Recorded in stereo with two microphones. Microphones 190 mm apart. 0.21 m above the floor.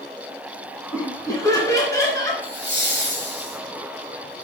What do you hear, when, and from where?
0.9 s laughter: 20° left (ahead or behind), 2 m; by 2.3 s 15° left (ahead or behind), 3.5 m
2.4 s laughter: 65° left (ahead or behind), 4.5 m